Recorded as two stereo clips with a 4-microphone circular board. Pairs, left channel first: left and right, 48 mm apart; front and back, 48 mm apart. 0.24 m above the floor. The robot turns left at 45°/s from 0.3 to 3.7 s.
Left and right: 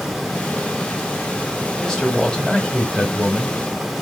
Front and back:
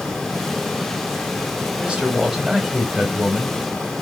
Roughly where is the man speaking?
Behind left.